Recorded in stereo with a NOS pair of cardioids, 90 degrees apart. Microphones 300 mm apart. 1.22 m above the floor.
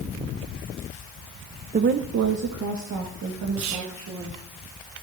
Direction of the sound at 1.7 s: 25° right.